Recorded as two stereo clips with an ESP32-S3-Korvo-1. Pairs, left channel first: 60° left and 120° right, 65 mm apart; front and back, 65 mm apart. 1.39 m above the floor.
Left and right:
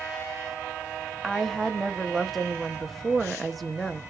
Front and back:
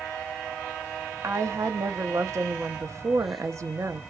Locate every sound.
1.2 s a woman speaking: 150° left, 0.7 m